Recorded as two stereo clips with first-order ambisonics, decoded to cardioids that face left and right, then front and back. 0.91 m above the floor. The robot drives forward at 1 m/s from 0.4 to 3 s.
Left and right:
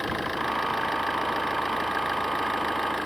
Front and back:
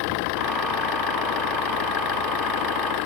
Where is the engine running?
Straight ahead.